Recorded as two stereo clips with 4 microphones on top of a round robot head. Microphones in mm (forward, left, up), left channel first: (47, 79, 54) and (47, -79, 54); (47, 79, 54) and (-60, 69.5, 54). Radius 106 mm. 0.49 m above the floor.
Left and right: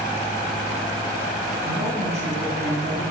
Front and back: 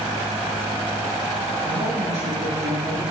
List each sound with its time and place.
1.6 s a woman speaking: 145° right, 5 m; by 3.0 s 140° right, 4.5 m